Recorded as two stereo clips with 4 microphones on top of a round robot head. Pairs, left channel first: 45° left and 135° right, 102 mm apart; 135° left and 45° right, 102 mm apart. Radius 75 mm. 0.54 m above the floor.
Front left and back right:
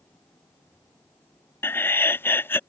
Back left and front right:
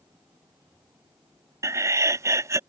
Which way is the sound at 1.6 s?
10° right.